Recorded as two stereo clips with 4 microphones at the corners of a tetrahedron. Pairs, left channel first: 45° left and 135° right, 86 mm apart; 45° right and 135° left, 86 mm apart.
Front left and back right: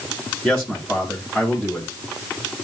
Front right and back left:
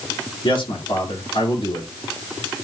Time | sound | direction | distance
0.4 | a man speaking | 40° right | 6.5 m